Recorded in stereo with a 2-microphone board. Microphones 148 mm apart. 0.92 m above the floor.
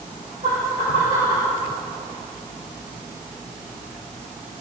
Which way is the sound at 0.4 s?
75° right (ahead or behind).